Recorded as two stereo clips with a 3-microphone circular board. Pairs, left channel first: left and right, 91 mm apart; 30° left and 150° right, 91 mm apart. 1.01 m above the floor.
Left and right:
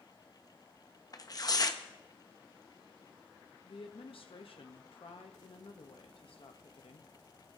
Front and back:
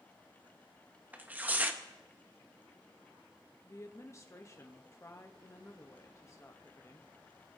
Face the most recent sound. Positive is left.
turn(degrees=85)